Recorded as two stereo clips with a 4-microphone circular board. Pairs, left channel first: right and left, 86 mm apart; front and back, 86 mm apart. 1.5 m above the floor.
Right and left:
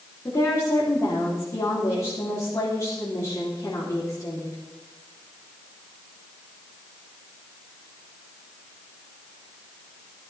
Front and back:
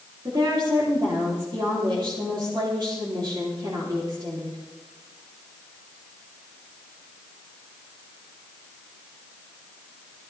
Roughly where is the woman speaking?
Behind right.